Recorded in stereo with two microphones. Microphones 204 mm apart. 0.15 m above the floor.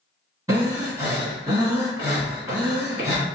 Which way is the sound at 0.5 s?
15° right (ahead or behind).